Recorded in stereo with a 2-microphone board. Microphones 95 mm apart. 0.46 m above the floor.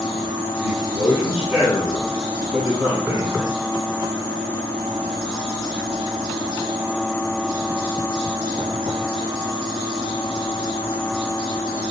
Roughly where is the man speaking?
Centre.